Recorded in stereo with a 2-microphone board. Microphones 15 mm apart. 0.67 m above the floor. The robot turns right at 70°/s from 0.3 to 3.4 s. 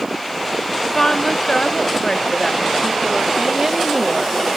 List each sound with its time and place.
0.8 s a woman speaking: 30° left, 1.0 m; by 4.4 s 150° right, 1.0 m